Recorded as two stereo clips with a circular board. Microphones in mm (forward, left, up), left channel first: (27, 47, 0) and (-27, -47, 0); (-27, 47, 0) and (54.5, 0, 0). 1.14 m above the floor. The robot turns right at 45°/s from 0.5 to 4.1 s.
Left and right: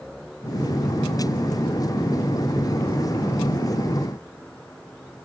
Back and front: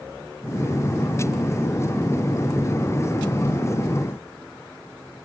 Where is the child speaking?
No child speaking in this recording.